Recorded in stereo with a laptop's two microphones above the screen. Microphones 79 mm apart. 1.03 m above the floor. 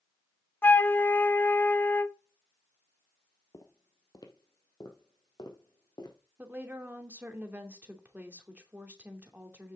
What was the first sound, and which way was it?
A flute, 25° left (ahead or behind).